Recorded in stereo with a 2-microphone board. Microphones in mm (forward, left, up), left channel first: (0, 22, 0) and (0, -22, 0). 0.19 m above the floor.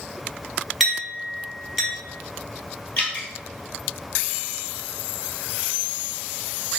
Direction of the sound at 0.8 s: Centre (ahead or behind).